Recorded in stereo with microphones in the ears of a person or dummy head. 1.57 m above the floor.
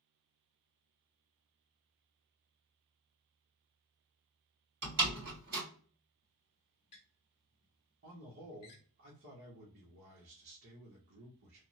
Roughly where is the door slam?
Right.